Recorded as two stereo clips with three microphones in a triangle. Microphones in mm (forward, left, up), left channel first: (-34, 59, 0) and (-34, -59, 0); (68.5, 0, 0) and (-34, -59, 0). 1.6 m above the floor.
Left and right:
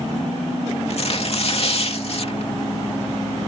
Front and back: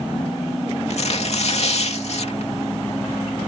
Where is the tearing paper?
55° left.